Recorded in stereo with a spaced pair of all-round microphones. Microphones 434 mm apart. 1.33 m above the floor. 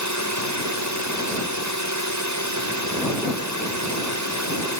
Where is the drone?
40° right (ahead or behind).